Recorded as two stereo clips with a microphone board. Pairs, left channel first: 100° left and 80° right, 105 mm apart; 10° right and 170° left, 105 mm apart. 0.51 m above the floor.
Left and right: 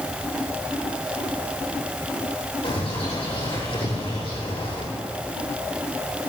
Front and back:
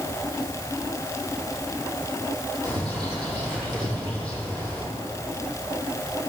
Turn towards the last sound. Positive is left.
turn(degrees=120)